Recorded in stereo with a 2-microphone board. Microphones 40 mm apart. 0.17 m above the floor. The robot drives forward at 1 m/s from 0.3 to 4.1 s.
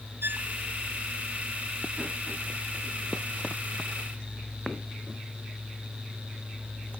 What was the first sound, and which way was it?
A violin, 65° right (ahead or behind).